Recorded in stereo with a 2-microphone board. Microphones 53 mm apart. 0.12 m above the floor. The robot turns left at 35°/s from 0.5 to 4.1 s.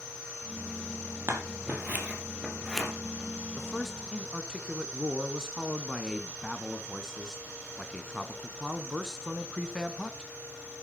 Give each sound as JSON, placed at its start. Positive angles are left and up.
{"t": 1.3, "sound": "scissors", "side_deg": -50, "distance_m": 3.5}
{"t": 3.6, "sound": "a man speaking", "side_deg": -5, "distance_m": 1.2}